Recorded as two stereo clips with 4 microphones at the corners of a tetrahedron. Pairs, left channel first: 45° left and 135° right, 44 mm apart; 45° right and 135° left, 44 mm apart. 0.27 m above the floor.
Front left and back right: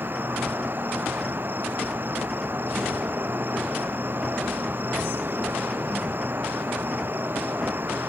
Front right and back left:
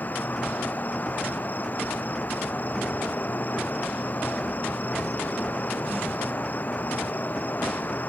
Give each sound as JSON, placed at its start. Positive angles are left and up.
{"t": 0.0, "sound": "an insect", "azimuth_deg": -95}